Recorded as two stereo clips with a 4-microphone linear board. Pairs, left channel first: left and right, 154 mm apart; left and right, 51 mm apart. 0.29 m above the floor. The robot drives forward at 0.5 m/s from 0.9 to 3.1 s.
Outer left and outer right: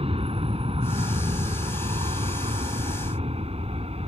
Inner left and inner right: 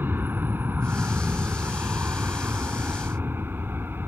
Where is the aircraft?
40° right (ahead or behind); by 4.1 s 45° right (ahead or behind).